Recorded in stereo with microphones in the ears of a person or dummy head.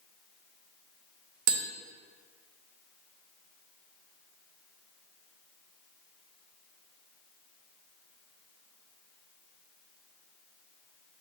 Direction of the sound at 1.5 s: 50° right (ahead or behind).